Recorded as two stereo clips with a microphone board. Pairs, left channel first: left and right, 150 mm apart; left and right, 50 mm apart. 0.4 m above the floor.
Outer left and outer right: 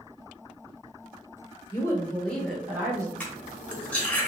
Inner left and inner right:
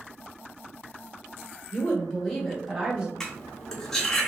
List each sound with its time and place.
1.7 s a woman speaking: 25° left (ahead or behind), 0.9 m; by 3.1 s 20° right (ahead or behind), 1.0 m
3.2 s cutlery clinking: 10° left (ahead or behind), 0.7 m